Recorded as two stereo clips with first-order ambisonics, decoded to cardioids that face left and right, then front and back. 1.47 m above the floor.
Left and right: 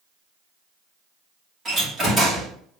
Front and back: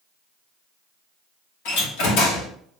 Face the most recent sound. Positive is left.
turn(degrees=-15)